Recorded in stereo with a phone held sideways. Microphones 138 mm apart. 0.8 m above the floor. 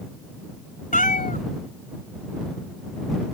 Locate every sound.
0.9 s a cat meowing: 75° left (ahead or behind)